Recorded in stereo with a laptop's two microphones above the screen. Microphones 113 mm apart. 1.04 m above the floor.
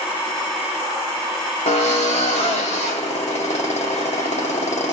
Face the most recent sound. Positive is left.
turn(degrees=80)